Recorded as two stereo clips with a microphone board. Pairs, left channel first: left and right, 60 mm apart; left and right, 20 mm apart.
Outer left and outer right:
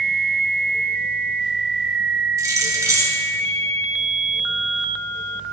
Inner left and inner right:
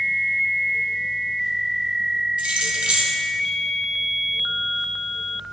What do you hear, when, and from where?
2.4 s keys jangling: 65° right (ahead or behind), 2 m